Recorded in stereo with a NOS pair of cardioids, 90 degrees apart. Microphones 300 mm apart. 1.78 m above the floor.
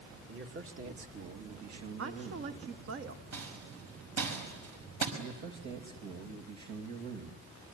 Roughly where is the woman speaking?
Ahead right.